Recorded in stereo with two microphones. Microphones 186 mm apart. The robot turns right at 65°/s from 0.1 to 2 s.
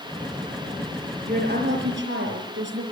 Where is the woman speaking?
135° right, 6 m; by 2.8 s 85° right, 6 m.